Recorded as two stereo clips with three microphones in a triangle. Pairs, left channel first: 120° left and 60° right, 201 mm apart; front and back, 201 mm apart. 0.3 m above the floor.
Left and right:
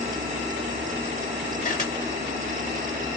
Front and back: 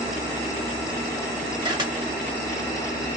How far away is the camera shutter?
About 1.4 m.